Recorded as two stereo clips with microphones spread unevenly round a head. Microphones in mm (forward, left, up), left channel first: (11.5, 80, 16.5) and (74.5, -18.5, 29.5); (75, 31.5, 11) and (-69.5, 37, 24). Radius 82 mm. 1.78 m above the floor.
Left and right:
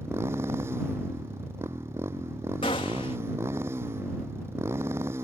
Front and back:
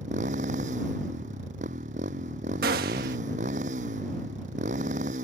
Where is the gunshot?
175° right.